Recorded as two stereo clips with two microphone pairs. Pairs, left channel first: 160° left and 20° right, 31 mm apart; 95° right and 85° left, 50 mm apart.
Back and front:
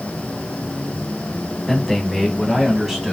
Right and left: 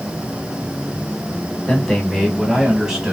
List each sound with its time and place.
1.7 s a man speaking: 140° right, 1.4 m; by 3.1 s 60° left, 1.3 m